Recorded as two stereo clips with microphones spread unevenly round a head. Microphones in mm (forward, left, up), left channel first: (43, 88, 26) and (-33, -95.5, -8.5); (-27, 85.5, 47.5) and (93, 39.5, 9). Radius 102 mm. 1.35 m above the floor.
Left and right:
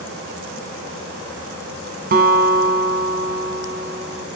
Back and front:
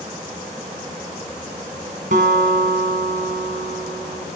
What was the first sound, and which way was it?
A guitar, 70° right.